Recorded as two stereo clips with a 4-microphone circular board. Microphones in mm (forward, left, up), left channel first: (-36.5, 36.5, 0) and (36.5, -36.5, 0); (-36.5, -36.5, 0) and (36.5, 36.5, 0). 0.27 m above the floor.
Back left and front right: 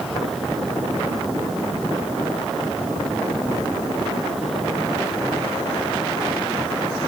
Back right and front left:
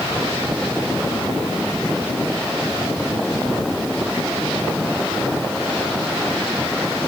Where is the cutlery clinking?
No cutlery clinking in this recording.